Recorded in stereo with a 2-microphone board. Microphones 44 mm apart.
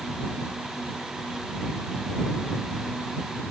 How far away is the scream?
I don't hear a scream.